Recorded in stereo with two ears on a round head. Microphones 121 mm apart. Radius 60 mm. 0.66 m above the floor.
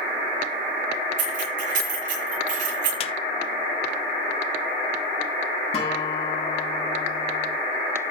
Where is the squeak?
45° left (ahead or behind), 0.8 m.